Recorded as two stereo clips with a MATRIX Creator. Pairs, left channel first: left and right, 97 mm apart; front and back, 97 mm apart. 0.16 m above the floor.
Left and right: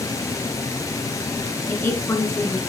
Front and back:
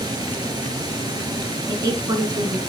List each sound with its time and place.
0.0 s running water: 140° left, 1.6 m
1.7 s a woman speaking: 145° left, 1.9 m